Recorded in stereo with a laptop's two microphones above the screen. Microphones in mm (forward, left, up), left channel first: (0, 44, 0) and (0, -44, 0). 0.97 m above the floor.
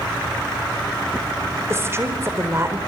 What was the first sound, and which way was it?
A woman speaking, 30° right (ahead or behind).